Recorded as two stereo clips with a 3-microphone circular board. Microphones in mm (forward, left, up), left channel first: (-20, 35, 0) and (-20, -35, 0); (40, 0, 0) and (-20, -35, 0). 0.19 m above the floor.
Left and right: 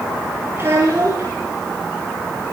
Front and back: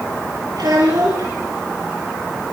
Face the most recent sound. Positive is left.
turn(degrees=-145)